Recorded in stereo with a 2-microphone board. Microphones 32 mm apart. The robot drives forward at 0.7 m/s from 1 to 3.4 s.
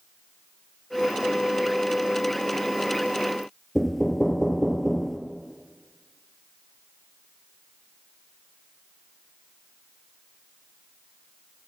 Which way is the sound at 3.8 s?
5° left (ahead or behind).